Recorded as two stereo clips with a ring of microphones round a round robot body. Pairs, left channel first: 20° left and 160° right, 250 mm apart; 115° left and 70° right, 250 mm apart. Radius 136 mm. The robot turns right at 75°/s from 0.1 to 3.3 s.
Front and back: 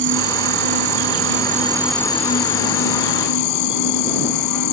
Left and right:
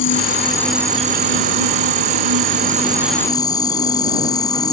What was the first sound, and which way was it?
An insect, 155° left.